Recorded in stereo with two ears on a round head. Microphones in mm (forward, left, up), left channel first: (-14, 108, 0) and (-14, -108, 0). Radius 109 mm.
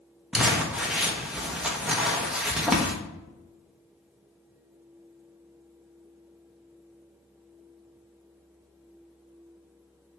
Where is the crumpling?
5° right (ahead or behind), 1.1 m.